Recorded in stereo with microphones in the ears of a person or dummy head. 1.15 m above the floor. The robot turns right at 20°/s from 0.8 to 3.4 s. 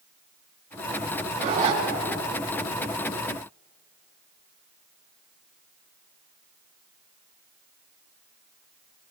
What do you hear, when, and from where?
1.4 s a zipper: 40° right (ahead or behind), 3.5 m; by 1.8 s 35° right (ahead or behind), 3.5 m